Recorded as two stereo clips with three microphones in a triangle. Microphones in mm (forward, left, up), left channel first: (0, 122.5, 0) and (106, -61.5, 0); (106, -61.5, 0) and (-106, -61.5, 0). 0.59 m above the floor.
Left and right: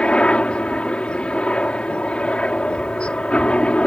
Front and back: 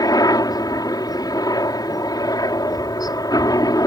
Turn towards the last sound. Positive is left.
turn(degrees=40)